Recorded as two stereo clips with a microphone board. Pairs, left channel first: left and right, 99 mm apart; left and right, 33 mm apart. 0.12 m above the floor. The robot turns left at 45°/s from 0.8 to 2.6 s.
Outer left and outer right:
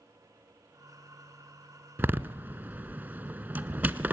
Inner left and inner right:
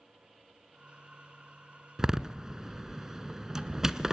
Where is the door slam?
20° right (ahead or behind), 0.8 m.